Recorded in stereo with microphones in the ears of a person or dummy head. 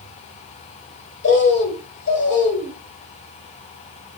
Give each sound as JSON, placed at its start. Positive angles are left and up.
{"t": 1.2, "sound": "a bird", "side_deg": 50, "distance_m": 1.0}